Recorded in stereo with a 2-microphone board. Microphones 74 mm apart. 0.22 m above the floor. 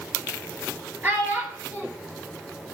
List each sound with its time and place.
1.0 s a child speaking: 25° right (ahead or behind), 3 m